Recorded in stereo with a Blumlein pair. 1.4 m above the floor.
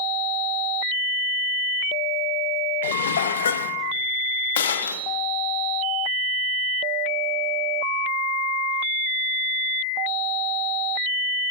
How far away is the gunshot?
About 1.1 m.